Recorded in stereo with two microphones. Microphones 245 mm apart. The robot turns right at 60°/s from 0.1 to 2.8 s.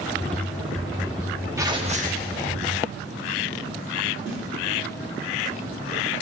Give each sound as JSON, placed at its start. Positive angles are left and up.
{"t": 1.6, "sound": "tearing paper", "azimuth_deg": -165, "distance_m": 1.0}
{"t": 4.3, "sound": "a snare drum", "side_deg": -55, "distance_m": 5.0}